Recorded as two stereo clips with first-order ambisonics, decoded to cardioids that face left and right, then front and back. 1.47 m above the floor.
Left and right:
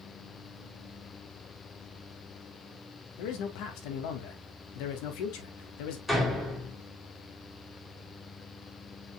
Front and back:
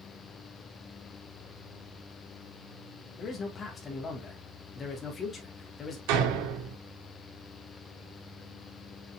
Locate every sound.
3.2 s a man speaking: 70° left, 2.5 m
6.1 s a door slam: 175° left, 2.5 m